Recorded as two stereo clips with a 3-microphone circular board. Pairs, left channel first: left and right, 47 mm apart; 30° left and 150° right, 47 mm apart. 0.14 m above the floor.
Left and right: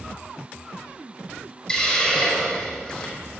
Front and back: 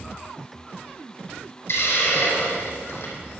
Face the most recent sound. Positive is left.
turn(degrees=15)